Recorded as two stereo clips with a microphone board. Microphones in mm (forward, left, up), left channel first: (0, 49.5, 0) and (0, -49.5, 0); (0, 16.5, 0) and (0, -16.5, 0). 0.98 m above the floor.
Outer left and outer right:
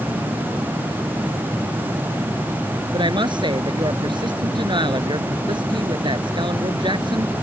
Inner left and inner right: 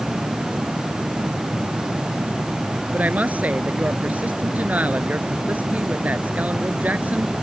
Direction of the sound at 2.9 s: 55° right (ahead or behind).